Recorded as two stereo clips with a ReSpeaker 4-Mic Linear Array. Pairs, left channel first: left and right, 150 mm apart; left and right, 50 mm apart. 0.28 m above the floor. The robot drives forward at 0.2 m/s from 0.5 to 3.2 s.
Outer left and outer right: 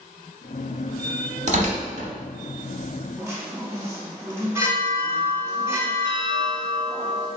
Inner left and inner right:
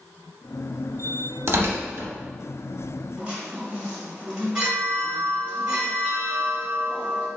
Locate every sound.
1.5 s tearing paper: 50° right (ahead or behind), 0.7 m; by 2.1 s 55° right (ahead or behind), 0.7 m
3.2 s a chime: 20° right (ahead or behind), 0.9 m